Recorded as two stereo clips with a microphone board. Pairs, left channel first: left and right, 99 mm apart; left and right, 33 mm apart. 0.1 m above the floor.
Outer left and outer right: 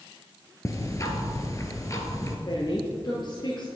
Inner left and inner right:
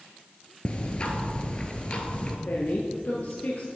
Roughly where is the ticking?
Left.